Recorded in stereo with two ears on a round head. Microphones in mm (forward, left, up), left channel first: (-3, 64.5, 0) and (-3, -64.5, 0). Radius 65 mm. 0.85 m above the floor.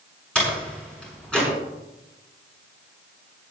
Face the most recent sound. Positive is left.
turn(degrees=5)  # may be behind; listen again after turning